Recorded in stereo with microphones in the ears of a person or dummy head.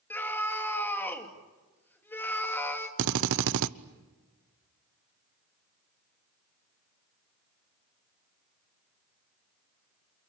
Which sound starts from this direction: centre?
A scream, at 0.1 s.